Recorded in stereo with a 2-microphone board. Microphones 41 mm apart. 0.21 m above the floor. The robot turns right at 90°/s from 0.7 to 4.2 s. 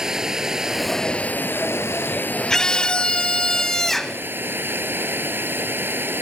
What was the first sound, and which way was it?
Running water, 10° right.